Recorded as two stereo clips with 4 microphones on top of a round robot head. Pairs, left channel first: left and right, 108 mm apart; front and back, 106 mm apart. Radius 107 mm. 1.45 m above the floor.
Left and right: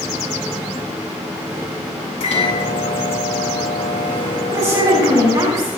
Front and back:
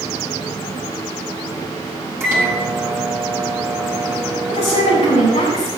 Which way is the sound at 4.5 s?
25° right.